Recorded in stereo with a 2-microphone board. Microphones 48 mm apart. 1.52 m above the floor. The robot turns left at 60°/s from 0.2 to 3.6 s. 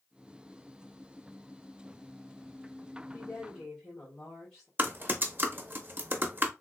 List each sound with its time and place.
3.1 s a woman speaking: 45° left (ahead or behind), 1.8 m; by 4.7 s 15° left (ahead or behind), 1.8 m
4.8 s typing on a keyboard: 35° right (ahead or behind), 0.7 m